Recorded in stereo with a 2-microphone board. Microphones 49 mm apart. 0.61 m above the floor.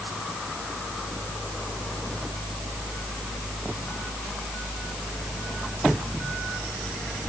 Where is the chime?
No chime in this recording.